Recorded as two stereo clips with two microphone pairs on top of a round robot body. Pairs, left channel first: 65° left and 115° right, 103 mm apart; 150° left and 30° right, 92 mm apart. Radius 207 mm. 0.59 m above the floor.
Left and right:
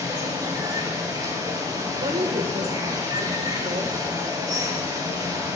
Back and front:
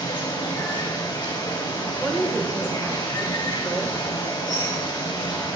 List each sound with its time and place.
0.0 s running water: 170° right, 4 m
2.0 s a woman speaking: 105° right, 3 m